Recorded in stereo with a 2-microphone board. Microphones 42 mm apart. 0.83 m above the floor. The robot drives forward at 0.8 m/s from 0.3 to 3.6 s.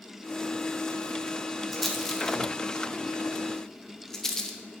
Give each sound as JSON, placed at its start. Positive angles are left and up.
{"t": 1.7, "sound": "a rattle", "side_deg": 10, "distance_m": 1.2}